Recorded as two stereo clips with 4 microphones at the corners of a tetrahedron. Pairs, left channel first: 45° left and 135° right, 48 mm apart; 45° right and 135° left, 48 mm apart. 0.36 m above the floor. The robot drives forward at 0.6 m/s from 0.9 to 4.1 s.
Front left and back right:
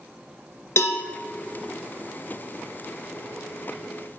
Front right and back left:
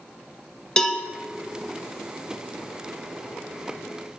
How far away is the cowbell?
About 0.8 m.